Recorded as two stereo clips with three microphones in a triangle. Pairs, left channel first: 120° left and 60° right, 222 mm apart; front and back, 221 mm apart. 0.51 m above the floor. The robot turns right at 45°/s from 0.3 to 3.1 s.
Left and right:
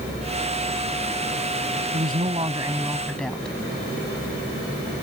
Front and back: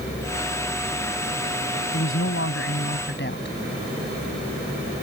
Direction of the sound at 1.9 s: 20° right.